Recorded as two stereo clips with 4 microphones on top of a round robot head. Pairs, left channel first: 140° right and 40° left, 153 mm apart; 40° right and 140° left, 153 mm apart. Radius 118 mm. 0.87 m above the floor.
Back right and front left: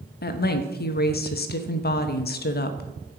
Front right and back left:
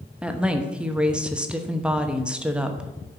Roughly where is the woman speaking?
Behind right.